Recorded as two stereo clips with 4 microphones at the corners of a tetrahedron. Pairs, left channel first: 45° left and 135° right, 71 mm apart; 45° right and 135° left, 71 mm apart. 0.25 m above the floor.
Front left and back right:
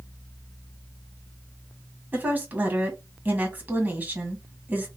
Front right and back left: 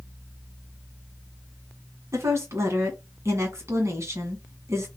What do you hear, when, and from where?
2.1 s a woman speaking: 165° left, 1.8 m